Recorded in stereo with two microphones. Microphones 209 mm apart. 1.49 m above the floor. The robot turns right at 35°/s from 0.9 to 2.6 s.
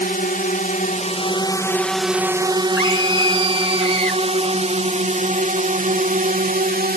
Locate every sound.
0.0 s a drone: 45° left (ahead or behind); by 7.0 s 45° right (ahead or behind)
2.8 s a scream: 85° left